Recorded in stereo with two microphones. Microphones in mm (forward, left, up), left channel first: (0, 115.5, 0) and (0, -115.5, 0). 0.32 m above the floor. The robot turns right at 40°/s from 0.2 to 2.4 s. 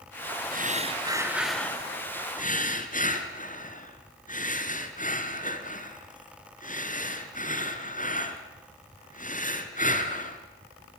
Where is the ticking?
No ticking in this recording.